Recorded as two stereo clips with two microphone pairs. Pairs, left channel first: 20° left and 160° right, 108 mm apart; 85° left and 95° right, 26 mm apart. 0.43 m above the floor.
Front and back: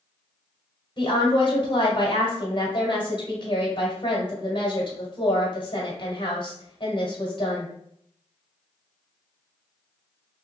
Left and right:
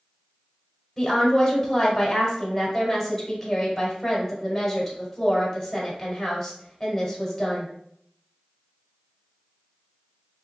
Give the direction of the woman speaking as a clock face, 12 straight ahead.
12 o'clock.